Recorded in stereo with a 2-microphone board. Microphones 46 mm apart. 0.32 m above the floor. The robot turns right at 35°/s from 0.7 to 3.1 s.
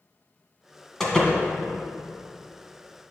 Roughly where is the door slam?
Centre.